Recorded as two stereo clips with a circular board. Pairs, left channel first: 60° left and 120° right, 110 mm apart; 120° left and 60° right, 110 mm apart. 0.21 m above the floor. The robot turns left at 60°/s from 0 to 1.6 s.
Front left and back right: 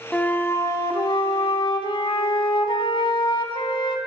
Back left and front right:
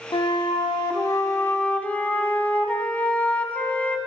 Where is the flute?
135° left, 0.6 m; by 4.0 s 50° left, 0.6 m.